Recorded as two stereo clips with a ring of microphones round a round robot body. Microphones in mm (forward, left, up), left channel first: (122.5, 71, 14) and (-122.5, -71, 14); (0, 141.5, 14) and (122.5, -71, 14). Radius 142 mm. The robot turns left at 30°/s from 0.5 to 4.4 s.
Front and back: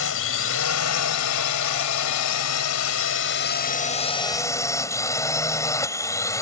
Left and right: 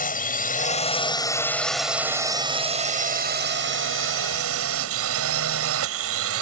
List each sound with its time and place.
0.0 s a drone: 70° left; by 6.4 s 50° right